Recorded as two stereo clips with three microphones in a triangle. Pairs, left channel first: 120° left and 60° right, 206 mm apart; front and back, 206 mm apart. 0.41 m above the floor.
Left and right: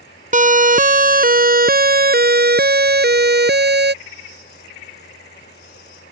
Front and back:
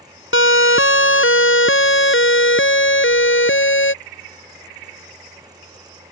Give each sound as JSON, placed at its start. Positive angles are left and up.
{"t": 0.3, "sound": "a siren", "azimuth_deg": -10}